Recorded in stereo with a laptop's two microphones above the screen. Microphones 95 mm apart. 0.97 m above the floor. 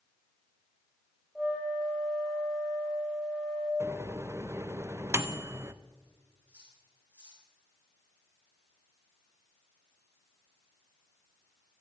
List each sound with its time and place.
1.4 s a flute: centre (ahead or behind), 4.5 m
3.8 s a microwave: 30° right (ahead or behind), 0.5 m
6.5 s cutlery clinking: 20° right (ahead or behind), 7.5 m